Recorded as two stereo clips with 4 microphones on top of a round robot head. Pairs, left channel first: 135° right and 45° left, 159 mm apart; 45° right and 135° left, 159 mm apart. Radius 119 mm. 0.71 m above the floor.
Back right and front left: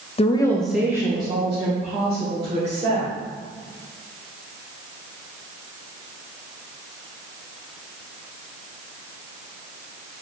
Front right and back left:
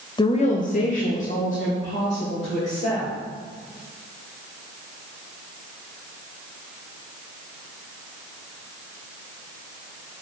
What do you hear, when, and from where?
0.2 s a woman speaking: 100° right, 0.6 m; by 3.1 s straight ahead, 2.5 m